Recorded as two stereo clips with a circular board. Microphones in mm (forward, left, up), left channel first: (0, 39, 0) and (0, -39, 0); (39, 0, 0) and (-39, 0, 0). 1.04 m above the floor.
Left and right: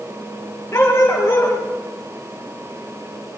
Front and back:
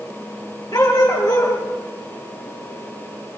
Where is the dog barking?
30° left, 4.5 m.